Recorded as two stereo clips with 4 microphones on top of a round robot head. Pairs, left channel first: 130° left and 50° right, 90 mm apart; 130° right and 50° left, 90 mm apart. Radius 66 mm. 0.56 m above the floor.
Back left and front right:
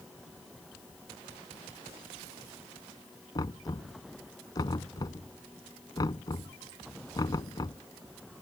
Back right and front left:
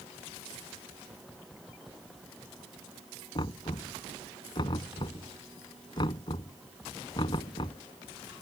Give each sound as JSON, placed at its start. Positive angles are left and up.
{"t": 3.4, "sound": "knocking", "azimuth_deg": -175}